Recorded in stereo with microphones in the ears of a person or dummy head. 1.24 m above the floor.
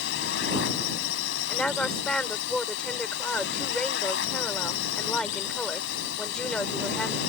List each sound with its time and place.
0.0 s a drone: 70° left (ahead or behind)
1.5 s a woman speaking: 10° left (ahead or behind)